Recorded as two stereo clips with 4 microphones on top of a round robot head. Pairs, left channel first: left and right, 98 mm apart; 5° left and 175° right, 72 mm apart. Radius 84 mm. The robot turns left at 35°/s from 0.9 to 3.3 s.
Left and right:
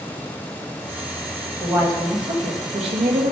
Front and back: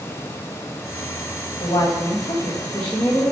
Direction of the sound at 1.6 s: 35° right.